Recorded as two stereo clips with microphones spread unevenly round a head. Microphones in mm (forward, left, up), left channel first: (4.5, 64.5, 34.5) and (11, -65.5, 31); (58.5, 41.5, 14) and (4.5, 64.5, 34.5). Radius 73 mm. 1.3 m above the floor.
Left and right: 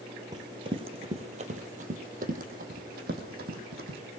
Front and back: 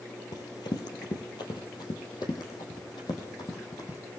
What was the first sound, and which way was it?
Running footsteps, 30° right.